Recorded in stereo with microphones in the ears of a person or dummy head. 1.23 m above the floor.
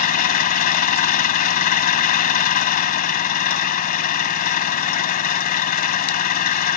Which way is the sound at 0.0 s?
45° left (ahead or behind).